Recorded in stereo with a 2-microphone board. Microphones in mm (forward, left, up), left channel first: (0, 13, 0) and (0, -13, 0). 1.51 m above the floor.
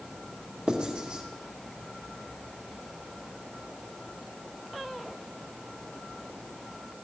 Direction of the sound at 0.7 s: 35° right (ahead or behind).